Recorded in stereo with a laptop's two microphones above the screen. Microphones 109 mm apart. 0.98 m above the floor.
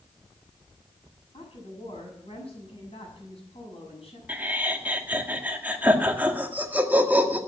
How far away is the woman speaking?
About 6.5 m.